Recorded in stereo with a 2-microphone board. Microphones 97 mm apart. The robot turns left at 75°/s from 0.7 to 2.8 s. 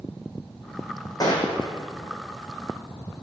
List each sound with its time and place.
1.2 s a gunshot: 140° left, 4 m; by 1.7 s 100° left, 4 m